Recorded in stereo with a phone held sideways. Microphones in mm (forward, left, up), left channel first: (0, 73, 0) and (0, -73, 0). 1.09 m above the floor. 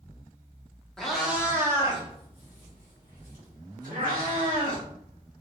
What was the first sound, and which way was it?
A cat meowing, 5° left (ahead or behind).